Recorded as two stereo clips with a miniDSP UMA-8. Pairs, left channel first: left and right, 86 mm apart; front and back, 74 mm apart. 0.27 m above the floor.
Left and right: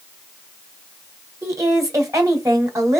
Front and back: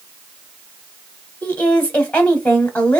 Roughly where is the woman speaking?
Ahead right.